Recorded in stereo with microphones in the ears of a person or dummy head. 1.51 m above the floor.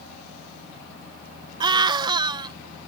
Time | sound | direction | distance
1.6 | a scream | 25° right (ahead or behind) | ?